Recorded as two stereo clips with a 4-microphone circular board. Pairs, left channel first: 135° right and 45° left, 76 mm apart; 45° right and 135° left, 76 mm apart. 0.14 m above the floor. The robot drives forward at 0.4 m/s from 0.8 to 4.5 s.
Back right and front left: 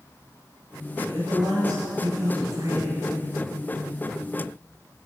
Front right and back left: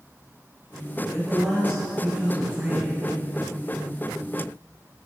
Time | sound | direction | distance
1.1 | a man speaking | 50° left | 2.5 m